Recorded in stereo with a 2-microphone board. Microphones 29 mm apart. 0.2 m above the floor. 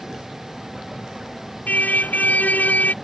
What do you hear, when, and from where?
0.0 s a vehicle: 15° right (ahead or behind)
1.7 s a car horn: 75° left (ahead or behind)